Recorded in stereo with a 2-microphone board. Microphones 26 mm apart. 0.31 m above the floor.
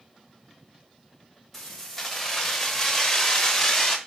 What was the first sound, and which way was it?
Keys jangling, centre (ahead or behind).